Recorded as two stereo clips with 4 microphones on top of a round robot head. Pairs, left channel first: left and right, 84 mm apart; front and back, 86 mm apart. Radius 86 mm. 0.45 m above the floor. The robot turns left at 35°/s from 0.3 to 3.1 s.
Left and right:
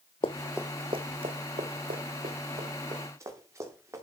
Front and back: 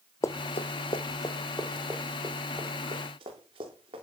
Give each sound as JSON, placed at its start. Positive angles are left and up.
{"t": 0.2, "sound": "running footsteps", "azimuth_deg": 55, "distance_m": 0.7}